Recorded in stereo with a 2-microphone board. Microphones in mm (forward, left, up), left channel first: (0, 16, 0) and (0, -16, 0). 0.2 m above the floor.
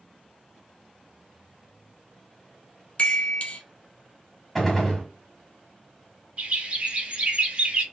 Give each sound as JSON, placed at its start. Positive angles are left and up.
{"t": 3.0, "sound": "a chime", "side_deg": 40, "distance_m": 1.3}
{"t": 4.5, "sound": "a gunshot", "side_deg": 5, "distance_m": 1.6}
{"t": 6.4, "sound": "a bird", "side_deg": -45, "distance_m": 2.5}